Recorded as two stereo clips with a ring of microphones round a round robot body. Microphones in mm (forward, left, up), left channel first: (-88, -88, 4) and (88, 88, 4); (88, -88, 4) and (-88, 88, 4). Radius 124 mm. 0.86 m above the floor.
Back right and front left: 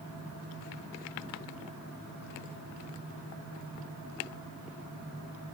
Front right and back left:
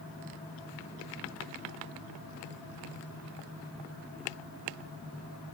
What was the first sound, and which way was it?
Only background noise.